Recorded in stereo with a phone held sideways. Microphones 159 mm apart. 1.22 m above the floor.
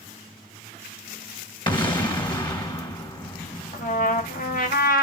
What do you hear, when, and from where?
1.7 s an explosion: 30° left (ahead or behind), 1.3 m
3.7 s a trumpet: 60° left (ahead or behind), 1.1 m